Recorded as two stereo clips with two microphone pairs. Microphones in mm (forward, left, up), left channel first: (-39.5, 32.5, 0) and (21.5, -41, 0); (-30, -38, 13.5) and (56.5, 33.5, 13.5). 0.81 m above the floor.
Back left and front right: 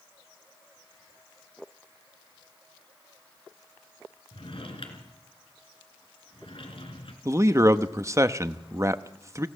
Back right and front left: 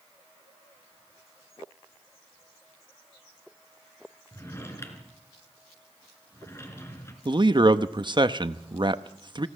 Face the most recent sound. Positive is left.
turn(degrees=5)